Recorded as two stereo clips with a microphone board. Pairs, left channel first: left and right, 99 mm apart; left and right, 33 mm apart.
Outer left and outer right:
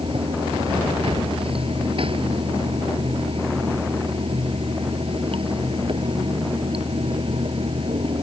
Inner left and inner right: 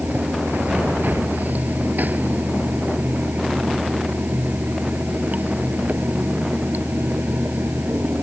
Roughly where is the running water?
Right.